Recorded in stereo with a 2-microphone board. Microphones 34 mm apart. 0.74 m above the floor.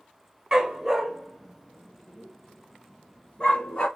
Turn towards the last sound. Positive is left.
turn(degrees=35)  # may be behind; listen again after turning